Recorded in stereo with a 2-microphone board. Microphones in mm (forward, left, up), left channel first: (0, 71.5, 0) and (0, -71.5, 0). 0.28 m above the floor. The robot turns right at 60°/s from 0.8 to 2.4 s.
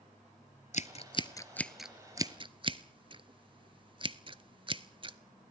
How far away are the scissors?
About 0.7 m.